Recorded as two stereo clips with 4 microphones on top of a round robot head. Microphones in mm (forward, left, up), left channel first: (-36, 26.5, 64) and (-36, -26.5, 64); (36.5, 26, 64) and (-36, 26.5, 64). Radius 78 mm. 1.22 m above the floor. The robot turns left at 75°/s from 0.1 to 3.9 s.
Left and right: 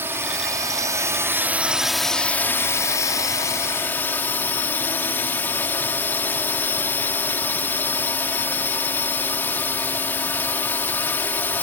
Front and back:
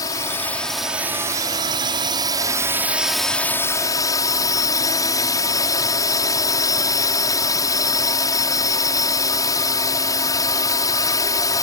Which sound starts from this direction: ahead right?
A drone, at 0.0 s.